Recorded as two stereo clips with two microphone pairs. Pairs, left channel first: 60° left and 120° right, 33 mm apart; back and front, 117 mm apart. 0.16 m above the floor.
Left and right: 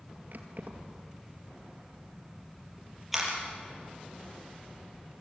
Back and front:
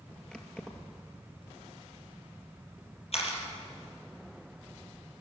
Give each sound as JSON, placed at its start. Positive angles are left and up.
{"t": 0.3, "sound": "keys jangling", "azimuth_deg": -95, "distance_m": 2.0}
{"t": 3.1, "sound": "a camera shutter", "azimuth_deg": 155, "distance_m": 4.5}